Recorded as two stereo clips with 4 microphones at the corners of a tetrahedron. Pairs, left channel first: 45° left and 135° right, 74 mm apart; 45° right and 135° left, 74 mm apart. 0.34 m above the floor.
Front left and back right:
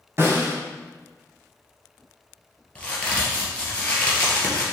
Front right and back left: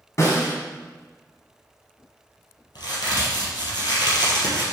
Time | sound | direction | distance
0.2 | a snare drum | 90° right | 2 m
2.8 | a crack | 30° right | 2.5 m